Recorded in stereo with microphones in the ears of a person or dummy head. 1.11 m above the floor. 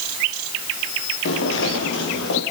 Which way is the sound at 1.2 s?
80° left.